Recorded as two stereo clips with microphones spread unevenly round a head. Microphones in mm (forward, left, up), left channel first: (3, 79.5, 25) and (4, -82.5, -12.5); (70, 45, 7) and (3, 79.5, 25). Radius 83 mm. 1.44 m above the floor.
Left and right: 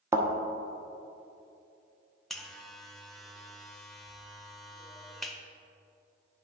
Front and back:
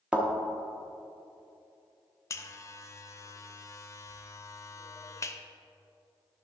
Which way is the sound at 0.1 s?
170° right.